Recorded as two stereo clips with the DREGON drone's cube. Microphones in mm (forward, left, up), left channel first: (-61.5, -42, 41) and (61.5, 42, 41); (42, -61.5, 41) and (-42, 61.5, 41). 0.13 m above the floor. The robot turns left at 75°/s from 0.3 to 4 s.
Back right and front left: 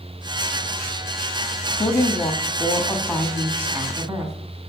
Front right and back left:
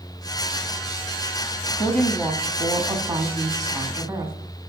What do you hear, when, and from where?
1.8 s a woman speaking: 125° right, 1.8 m; by 4.3 s 70° left, 1.8 m